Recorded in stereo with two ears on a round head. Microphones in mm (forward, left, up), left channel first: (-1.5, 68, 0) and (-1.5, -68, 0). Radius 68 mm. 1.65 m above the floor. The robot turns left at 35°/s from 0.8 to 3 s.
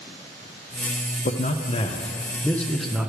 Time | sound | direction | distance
1.2 | a man speaking | 55° left | 0.6 m